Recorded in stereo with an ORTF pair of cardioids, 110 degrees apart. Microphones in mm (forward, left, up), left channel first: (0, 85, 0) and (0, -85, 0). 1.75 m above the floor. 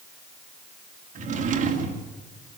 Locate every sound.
1.1 s a drawer: 50° right, 2.5 m